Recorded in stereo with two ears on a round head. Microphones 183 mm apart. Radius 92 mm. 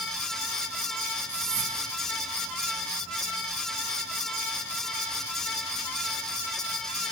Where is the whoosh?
30° right (ahead or behind), 3 m.